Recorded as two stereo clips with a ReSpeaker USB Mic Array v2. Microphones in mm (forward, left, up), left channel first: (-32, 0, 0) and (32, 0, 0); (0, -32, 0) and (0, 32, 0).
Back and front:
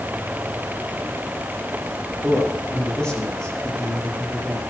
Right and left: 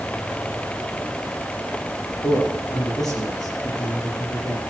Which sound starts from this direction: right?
A man speaking, at 2.2 s.